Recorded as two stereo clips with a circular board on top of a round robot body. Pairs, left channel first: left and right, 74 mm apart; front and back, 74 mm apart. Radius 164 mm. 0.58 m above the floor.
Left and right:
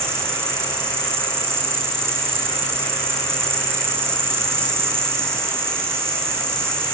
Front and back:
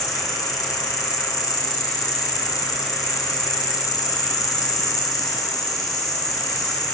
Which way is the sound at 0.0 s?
35° right.